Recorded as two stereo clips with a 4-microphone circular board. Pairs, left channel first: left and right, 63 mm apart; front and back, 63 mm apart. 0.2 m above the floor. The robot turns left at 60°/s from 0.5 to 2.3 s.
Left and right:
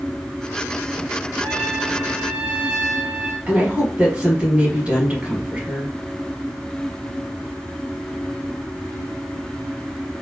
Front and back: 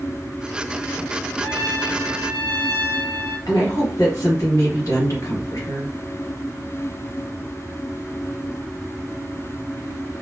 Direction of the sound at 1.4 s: 25° left.